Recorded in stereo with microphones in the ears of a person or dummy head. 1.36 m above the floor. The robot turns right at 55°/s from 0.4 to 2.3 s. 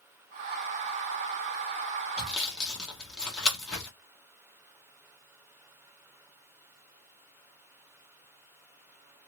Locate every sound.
2.2 s sawing: 5° right (ahead or behind), 0.9 m; by 3.9 s centre (ahead or behind), 0.9 m